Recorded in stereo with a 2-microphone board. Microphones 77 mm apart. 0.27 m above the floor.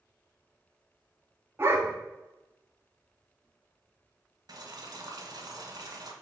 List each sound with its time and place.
1.6 s a dog barking: 35° right (ahead or behind), 0.8 m
4.5 s boiling: 60° right (ahead or behind), 0.7 m